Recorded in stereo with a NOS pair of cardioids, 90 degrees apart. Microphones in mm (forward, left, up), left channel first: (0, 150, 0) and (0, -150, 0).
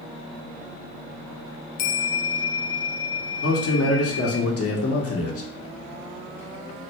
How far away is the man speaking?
About 1.4 m.